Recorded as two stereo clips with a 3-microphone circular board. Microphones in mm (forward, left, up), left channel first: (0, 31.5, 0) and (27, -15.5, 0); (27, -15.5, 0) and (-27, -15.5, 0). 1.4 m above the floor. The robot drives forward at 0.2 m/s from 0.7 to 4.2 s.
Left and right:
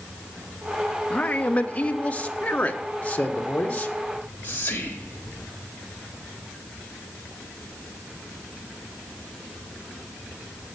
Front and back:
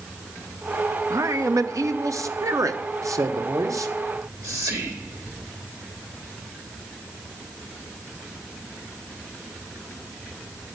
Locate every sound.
1.1 s a man speaking: 175° right, 0.8 m
4.1 s whispering: 175° left, 3 m